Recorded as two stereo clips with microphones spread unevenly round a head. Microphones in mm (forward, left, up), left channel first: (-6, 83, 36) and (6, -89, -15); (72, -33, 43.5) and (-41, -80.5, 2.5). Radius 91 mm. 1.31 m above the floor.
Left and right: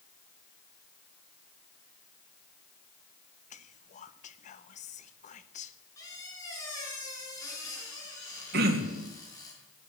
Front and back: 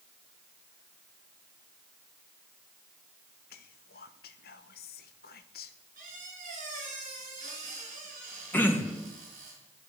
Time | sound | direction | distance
3.5 | whispering | 40° left | 1.1 m
6.0 | a squeak | 165° left | 6 m
8.5 | throat clearing | 55° right | 2 m